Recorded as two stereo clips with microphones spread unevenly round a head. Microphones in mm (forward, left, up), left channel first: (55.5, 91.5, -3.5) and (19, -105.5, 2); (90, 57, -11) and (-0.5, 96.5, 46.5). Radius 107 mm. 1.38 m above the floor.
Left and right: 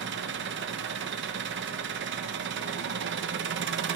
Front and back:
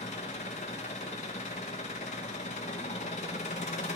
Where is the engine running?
80° right, 0.8 m.